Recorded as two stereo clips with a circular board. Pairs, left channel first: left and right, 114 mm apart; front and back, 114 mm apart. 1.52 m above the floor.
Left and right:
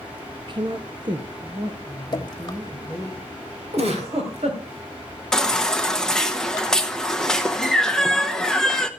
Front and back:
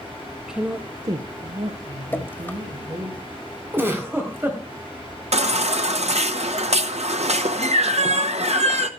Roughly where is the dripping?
Ahead left.